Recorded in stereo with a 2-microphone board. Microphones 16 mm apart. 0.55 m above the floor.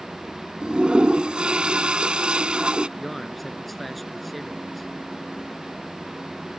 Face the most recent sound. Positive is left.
turn(degrees=0)  # may be behind; listen again after turning